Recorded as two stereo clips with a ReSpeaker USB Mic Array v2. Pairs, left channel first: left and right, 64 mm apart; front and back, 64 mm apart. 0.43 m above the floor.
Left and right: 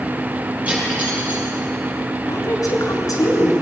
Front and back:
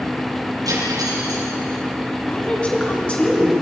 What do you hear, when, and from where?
0.7 s cutlery clinking: 160° right, 7 m
2.3 s a woman speaking: 70° left, 4.5 m